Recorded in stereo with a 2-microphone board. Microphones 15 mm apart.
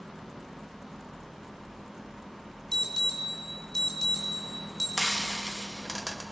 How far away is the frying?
About 1.1 m.